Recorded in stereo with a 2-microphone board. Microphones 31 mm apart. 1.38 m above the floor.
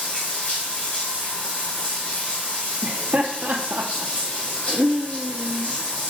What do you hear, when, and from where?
0.0 s running water: 55° left (ahead or behind), 2.5 m
2.8 s laughter: 65° right (ahead or behind), 0.6 m